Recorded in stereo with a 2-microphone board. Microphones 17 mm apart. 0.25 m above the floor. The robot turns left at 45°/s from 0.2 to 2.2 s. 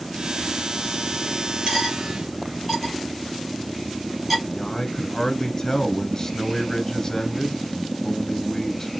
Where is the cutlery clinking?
35° right (ahead or behind), 3 m; by 4.4 s 10° right (ahead or behind), 3 m.